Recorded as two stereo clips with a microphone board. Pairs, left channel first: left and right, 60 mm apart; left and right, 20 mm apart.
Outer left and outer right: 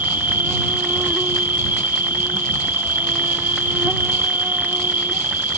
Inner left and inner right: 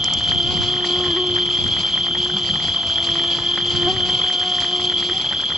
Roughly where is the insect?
Right.